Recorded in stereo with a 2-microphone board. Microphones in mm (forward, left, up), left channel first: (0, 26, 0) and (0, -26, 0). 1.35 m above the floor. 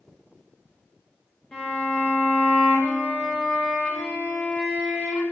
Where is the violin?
20° left (ahead or behind), 0.6 m.